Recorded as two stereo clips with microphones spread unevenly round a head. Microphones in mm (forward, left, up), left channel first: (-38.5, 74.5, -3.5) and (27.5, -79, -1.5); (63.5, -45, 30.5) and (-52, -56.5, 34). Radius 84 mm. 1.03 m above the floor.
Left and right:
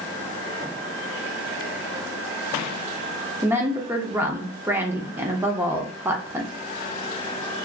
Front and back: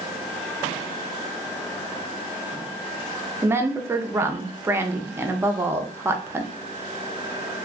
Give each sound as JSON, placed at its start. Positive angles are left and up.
{"t": 3.4, "sound": "a woman speaking", "azimuth_deg": -130, "distance_m": 0.6}